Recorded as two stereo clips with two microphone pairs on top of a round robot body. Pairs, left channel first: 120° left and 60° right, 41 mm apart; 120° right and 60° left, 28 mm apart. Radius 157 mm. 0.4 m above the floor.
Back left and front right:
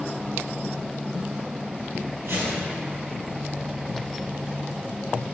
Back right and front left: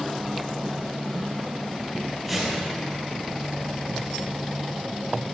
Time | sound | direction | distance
2.2 | a whoosh | 35° right | 3 m